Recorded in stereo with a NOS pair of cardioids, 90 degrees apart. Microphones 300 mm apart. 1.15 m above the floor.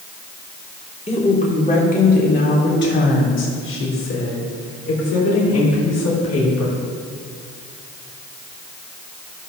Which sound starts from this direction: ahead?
A woman speaking, at 1.1 s.